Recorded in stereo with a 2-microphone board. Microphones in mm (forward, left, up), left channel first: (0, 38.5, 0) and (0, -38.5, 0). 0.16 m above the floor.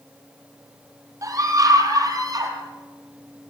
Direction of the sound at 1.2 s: 45° right (ahead or behind).